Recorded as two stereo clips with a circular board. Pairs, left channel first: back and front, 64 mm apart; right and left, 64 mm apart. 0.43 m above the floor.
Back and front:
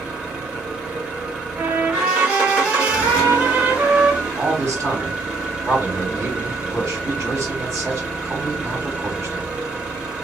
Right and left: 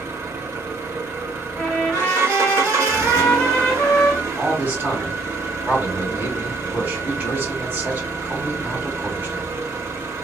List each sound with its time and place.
0.0 s an engine running: 65° left, 1.6 m
1.6 s a trumpet: 20° right, 1.5 m
4.4 s a man speaking: 30° left, 3 m